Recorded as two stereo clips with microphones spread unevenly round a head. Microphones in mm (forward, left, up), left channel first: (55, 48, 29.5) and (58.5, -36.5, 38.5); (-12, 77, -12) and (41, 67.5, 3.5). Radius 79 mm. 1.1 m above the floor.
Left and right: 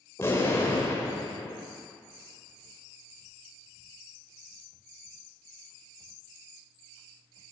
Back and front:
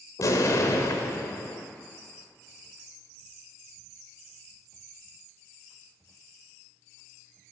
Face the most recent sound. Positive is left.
turn(degrees=165)